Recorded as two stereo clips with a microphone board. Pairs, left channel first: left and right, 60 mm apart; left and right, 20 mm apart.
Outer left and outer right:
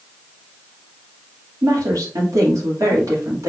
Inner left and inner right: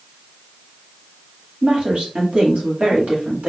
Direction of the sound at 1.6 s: 65° right (ahead or behind).